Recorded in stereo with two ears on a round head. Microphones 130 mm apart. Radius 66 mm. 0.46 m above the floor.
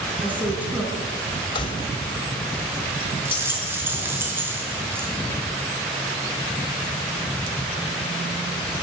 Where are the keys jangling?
35° left (ahead or behind), 1.7 m.